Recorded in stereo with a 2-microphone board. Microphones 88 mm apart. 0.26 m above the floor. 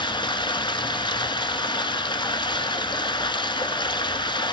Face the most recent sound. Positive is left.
turn(degrees=75)  # may be behind; listen again after turning